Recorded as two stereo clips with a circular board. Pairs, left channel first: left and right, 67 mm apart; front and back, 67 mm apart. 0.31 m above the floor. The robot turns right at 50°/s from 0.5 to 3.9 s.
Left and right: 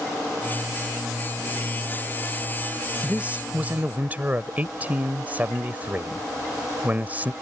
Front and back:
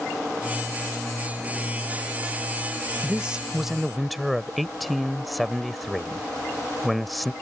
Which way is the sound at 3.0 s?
130° right.